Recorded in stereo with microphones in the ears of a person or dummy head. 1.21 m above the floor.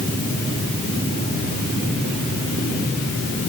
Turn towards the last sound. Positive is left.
No sound to turn to.